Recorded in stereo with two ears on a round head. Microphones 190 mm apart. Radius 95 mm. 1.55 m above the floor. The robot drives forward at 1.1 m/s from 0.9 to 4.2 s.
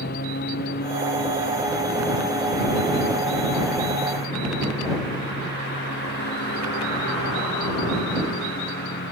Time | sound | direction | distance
0.0 | a lawn mower | 45° left (ahead or behind) | ?